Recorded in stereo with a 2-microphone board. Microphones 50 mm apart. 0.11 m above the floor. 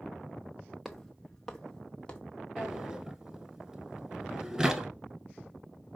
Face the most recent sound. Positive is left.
turn(degrees=-15)  # may be behind; listen again after turning